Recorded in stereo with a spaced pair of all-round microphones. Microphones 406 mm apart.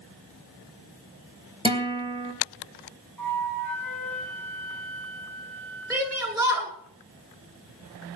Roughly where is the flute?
Right.